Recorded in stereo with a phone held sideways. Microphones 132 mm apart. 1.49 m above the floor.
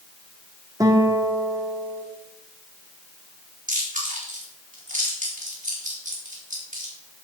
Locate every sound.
0.8 s a guitar: 25° right (ahead or behind), 1.8 m
3.7 s chewing: 80° right, 4 m